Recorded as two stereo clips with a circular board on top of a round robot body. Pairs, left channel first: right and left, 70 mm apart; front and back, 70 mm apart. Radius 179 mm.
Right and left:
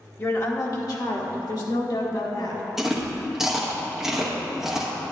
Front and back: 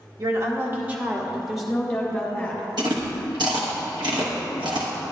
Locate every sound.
0.2 s a woman speaking: 145° right, 1.5 m; by 2.6 s 75° right, 3 m
2.8 s chewing: 175° left, 1.1 m